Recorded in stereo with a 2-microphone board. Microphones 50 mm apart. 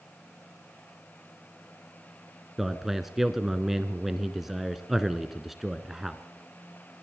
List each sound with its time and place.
2.6 s a man speaking: 5° right (ahead or behind), 1.3 m